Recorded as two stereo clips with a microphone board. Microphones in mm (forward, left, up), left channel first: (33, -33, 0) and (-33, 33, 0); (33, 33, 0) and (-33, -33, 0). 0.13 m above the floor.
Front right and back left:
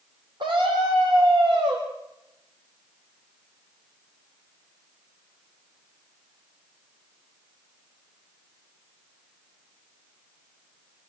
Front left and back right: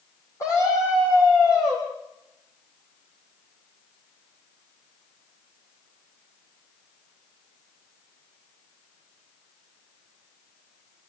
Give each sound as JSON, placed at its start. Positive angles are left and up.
{"t": 0.4, "sound": "a scream", "azimuth_deg": 100, "distance_m": 5.5}